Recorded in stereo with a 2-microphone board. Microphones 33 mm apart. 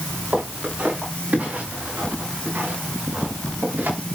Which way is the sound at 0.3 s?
50° right (ahead or behind).